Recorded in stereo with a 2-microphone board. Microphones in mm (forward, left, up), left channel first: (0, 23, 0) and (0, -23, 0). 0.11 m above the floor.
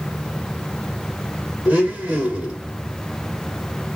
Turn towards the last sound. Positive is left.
turn(degrees=-20)  # may be behind; listen again after turning